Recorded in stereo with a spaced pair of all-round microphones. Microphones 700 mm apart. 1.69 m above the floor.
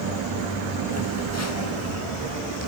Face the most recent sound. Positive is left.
turn(degrees=20)  # may be behind; listen again after turning